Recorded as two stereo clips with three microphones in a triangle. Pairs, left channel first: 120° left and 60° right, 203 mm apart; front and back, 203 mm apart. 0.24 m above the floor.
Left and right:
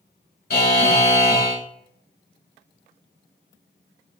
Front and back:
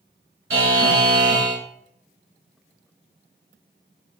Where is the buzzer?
165° left, 0.7 m.